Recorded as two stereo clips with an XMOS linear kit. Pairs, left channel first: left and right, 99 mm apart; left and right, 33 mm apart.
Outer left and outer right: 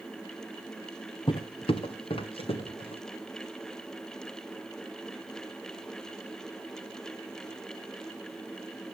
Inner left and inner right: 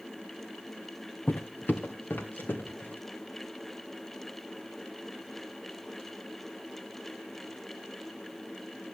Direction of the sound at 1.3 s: 55° left (ahead or behind).